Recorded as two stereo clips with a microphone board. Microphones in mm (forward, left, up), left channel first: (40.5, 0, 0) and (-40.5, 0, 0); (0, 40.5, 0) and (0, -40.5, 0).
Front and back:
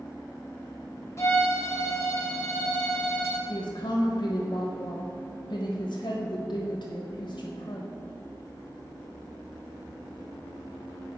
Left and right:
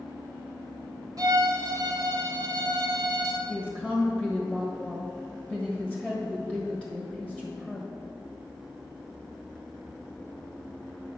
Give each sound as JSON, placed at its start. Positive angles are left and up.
{"t": 1.2, "sound": "a violin", "azimuth_deg": -55, "distance_m": 1.6}
{"t": 3.5, "sound": "a woman speaking", "azimuth_deg": -5, "distance_m": 1.4}